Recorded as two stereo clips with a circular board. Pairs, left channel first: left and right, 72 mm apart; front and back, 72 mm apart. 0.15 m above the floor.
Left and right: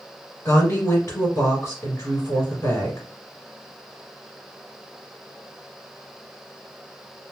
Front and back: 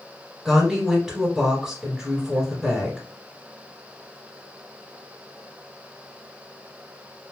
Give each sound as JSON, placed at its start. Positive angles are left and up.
{"t": 0.5, "sound": "a woman speaking", "azimuth_deg": 105, "distance_m": 1.4}